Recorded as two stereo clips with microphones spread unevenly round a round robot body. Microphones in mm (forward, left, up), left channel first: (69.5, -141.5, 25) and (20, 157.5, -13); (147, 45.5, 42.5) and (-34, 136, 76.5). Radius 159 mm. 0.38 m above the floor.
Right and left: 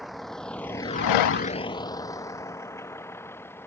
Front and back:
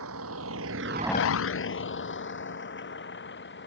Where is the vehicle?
170° right; by 3.7 s straight ahead.